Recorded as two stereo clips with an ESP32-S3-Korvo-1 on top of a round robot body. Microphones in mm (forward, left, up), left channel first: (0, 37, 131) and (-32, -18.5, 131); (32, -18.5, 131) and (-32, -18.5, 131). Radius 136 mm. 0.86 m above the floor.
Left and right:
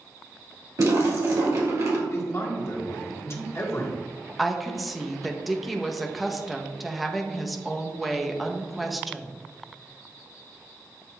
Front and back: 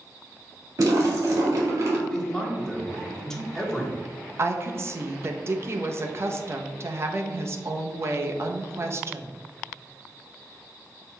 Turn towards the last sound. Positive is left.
turn(degrees=150)